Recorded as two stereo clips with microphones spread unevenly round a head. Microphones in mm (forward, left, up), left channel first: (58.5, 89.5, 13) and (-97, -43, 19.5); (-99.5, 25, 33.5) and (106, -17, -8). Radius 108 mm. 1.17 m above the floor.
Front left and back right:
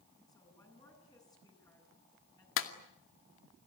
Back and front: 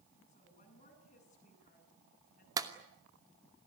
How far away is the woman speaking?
About 10 m.